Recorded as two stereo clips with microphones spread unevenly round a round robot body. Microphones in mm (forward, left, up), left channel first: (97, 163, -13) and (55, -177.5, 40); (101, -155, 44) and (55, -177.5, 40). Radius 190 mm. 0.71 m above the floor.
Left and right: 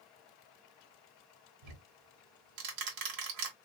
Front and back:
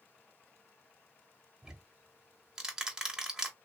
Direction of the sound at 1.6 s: 75° right.